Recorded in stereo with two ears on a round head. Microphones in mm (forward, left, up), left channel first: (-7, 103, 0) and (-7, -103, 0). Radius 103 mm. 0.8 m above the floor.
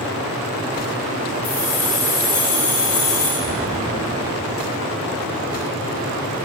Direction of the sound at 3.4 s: 15° left (ahead or behind).